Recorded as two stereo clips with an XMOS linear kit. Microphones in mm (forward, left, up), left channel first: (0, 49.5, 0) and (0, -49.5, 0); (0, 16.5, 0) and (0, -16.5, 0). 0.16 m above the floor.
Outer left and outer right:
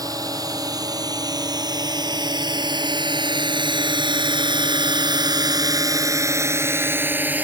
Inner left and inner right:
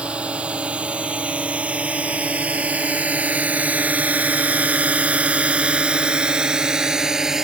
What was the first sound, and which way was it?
A drone, 40° right (ahead or behind).